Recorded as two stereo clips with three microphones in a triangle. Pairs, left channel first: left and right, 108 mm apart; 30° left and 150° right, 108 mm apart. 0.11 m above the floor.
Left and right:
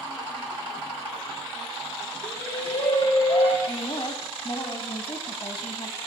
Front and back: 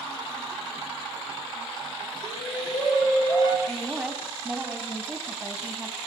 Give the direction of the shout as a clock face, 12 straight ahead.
9 o'clock.